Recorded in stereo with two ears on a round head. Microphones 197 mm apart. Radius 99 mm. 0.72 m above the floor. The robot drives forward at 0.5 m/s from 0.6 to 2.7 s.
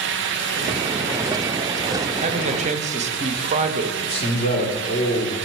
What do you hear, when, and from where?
2.2 s a man speaking: 30° right (ahead or behind), 0.9 m
4.0 s a man speaking: 30° left (ahead or behind), 2 m